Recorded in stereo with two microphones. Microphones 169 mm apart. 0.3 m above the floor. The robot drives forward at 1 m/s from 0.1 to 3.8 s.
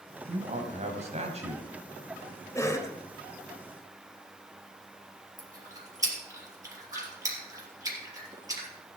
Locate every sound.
0.3 s a man speaking: 45° right (ahead or behind), 2 m; by 2.5 s 30° right (ahead or behind), 3 m
2.5 s a cough: 20° left (ahead or behind), 1.3 m; by 3.0 s 15° left (ahead or behind), 1.4 m
5.4 s chewing: 20° right (ahead or behind), 3.5 m